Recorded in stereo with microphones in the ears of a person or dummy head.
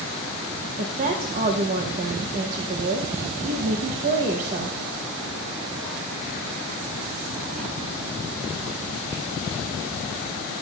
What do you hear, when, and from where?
0.8 s a woman speaking: 45° right (ahead or behind), 1.1 m